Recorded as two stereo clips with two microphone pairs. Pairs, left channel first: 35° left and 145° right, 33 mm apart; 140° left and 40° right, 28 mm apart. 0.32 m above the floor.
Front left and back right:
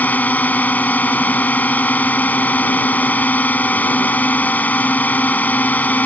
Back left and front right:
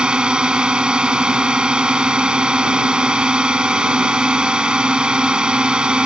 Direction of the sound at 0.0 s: 10° left.